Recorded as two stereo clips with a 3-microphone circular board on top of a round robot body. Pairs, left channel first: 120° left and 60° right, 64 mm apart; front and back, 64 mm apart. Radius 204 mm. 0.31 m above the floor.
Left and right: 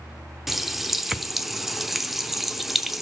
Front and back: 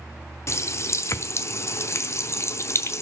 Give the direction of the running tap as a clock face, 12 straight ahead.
11 o'clock.